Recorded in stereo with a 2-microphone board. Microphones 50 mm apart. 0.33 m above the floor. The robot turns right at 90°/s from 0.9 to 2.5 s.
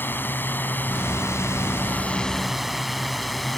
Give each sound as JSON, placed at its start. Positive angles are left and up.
{"t": 0.0, "sound": "a drone", "side_deg": 45}